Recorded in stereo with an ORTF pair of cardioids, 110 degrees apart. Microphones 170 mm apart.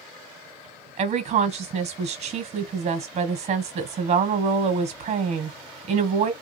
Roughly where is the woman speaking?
Ahead right.